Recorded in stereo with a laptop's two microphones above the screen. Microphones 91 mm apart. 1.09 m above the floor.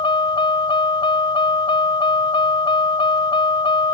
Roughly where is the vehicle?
Left.